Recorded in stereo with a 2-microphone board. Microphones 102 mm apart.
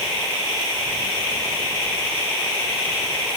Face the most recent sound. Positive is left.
No sound to turn to.